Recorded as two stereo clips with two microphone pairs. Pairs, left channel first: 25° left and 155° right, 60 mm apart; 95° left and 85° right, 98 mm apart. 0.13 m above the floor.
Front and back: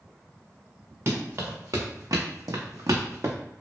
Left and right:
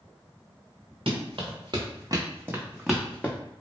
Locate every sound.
1.1 s running footsteps: 110° right, 1.0 m; by 3.4 s 160° left, 0.7 m